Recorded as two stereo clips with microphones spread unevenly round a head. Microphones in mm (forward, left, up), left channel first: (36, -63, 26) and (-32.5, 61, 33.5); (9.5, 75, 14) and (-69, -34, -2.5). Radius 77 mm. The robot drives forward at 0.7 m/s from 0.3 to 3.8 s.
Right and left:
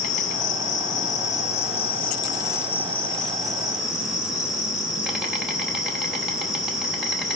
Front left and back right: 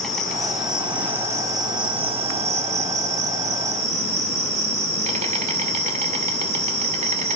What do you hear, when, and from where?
0.0 s an insect: 25° right, 1.5 m; by 7.4 s 155° right, 1.7 m